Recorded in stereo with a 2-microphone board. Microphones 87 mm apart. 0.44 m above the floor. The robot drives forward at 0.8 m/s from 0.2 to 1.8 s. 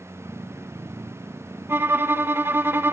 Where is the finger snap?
I don't hear a finger snap.